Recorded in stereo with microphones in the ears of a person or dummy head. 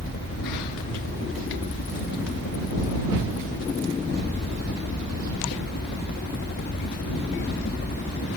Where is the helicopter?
50° left (ahead or behind).